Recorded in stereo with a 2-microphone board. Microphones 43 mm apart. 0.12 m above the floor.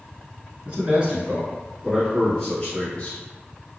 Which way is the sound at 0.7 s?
30° right (ahead or behind).